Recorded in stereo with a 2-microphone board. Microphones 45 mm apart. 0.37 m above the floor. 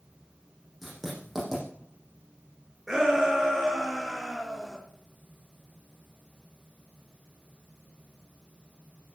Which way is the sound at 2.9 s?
5° right (ahead or behind).